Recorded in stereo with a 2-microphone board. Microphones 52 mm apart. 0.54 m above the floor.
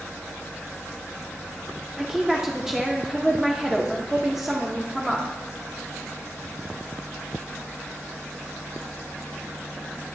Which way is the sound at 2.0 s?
10° right (ahead or behind).